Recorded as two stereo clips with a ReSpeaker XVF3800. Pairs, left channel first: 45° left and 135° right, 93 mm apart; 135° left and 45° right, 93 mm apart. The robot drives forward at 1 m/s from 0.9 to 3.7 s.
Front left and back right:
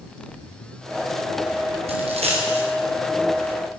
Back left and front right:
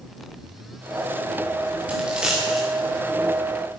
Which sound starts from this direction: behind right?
A dropped coin, at 1.9 s.